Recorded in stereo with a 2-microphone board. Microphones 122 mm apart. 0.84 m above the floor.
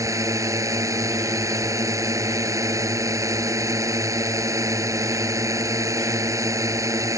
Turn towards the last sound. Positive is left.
turn(degrees=-25)  # may be behind; listen again after turning